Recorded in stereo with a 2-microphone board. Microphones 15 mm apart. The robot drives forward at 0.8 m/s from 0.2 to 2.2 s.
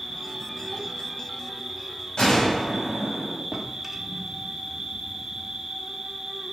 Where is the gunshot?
65° left (ahead or behind), 4 m.